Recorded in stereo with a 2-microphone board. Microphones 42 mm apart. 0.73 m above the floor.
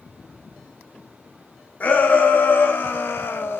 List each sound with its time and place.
1.8 s a shout: 45° left (ahead or behind), 1.3 m; by 3.6 s 60° left (ahead or behind), 0.7 m